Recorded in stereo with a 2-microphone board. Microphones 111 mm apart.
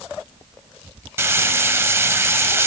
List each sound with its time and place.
1.2 s frying: 20° right (ahead or behind), 1.0 m